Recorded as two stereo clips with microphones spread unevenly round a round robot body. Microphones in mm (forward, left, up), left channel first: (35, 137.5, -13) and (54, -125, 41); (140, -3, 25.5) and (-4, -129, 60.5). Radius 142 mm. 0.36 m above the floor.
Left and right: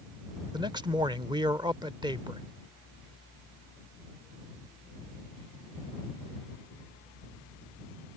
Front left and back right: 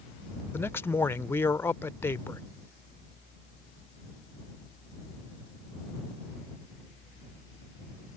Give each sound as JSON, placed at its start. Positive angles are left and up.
{"t": 0.5, "sound": "a man speaking", "azimuth_deg": -5}